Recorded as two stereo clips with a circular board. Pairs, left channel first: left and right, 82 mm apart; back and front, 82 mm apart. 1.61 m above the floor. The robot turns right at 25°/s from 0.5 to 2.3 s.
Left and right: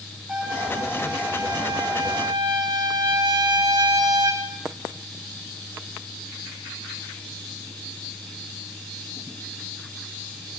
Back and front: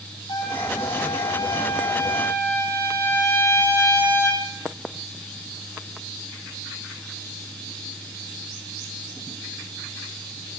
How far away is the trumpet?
About 7 m.